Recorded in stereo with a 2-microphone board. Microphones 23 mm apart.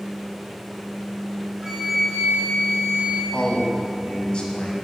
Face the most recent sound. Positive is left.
turn(degrees=40)  # may be behind; listen again after turning